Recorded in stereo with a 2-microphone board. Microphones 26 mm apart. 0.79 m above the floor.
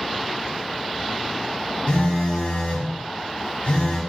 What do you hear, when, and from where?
1.9 s a phone buzzing: 60° left (ahead or behind), 1.8 m